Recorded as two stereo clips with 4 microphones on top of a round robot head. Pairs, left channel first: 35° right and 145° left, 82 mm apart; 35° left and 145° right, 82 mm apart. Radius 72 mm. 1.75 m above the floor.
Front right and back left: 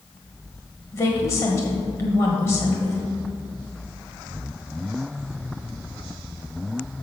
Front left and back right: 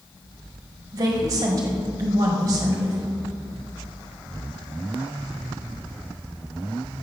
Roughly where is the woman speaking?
Right.